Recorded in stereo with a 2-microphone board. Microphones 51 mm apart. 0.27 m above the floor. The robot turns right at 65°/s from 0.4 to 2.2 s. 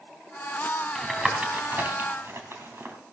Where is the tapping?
5° left (ahead or behind), 2.5 m; by 3.0 s 55° right (ahead or behind), 2.5 m.